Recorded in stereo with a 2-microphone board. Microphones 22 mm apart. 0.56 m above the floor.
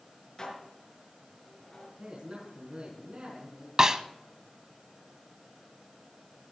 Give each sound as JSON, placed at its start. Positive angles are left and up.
{"t": 0.4, "sound": "dishes clattering", "side_deg": 35, "distance_m": 5.5}
{"t": 2.0, "sound": "a man speaking", "side_deg": -50, "distance_m": 5.5}
{"t": 3.8, "sound": "a snare drum", "side_deg": -30, "distance_m": 0.7}